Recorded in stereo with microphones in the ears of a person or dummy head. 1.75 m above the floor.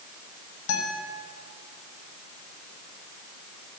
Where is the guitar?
80° left, 5.5 m.